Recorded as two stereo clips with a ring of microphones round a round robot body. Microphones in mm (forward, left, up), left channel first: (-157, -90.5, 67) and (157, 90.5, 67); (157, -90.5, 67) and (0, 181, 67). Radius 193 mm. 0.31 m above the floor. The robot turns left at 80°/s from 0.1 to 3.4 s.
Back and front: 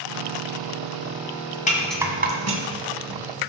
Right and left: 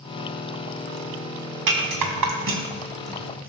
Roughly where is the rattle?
Behind left.